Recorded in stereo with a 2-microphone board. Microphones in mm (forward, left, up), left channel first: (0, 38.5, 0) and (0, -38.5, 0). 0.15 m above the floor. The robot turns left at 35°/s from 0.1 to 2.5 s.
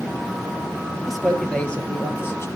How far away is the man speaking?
About 3 m.